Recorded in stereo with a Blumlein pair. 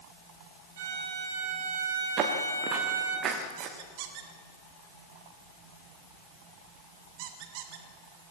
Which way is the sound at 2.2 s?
30° right.